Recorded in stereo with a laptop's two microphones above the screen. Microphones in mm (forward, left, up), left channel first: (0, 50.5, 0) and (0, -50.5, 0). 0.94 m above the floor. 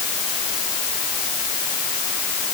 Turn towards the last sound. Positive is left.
No sound to turn to.